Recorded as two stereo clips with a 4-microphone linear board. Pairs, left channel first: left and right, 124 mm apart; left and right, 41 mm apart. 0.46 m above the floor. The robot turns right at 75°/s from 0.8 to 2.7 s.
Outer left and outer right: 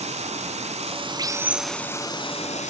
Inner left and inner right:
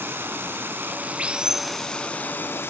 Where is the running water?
65° right, 0.9 m; by 2.7 s 80° left, 0.9 m.